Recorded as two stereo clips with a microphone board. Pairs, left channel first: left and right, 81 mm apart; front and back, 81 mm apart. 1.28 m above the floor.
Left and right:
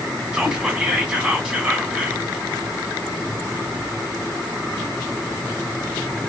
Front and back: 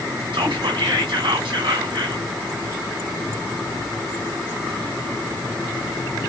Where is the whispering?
170° right, 1.6 m.